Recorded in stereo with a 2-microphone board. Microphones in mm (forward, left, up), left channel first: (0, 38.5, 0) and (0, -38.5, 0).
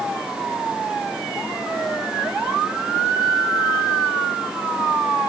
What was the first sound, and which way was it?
Only background noise.